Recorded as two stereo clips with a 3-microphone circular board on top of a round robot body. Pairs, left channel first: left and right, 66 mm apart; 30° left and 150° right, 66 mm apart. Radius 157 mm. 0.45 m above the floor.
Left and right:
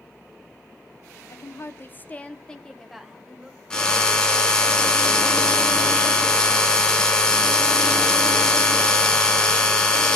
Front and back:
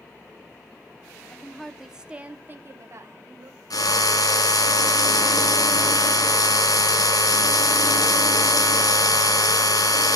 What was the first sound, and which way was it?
A woman speaking, 100° left.